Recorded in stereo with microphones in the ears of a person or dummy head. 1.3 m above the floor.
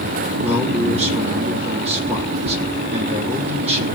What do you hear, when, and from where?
0.4 s a man speaking: 40° right (ahead or behind), 3 m